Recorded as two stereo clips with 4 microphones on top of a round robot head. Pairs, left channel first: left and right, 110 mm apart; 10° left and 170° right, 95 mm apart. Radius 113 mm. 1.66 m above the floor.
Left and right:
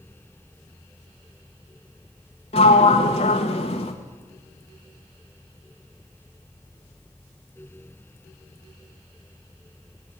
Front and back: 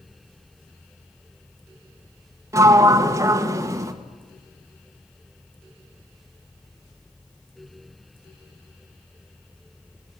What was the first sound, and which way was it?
A sliding door, 135° left.